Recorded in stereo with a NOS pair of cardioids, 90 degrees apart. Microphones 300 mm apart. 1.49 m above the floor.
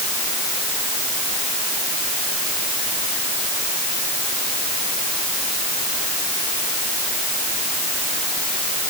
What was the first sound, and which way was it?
Only background noise.